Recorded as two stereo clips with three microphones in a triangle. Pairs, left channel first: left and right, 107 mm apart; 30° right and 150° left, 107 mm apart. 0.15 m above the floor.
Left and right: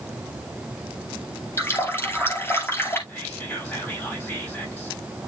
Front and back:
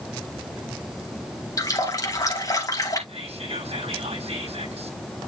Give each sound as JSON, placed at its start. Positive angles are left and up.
{"t": 1.6, "sound": "a running tap", "azimuth_deg": 25, "distance_m": 2.0}
{"t": 3.1, "sound": "whispering", "azimuth_deg": 155, "distance_m": 5.0}